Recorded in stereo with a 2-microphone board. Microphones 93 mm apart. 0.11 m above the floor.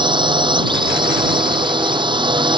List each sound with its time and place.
0.0 s a drone: 60° right (ahead or behind)